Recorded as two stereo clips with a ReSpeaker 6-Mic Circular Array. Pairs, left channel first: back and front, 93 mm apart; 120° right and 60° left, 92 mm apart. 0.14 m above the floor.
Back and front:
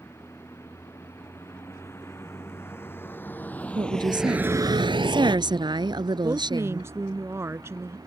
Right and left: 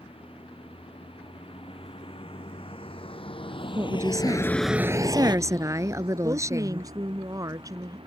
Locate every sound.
0.0 s a vehicle: 120° right; by 8.1 s 50° left
3.8 s a woman speaking: 15° left
6.2 s a woman speaking: 45° left